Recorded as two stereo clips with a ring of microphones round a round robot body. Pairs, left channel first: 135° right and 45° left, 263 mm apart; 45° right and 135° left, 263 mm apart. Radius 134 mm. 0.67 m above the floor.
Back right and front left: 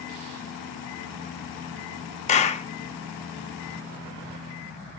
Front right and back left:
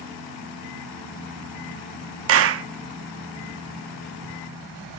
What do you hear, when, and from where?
2.3 s a clap: 165° left, 0.7 m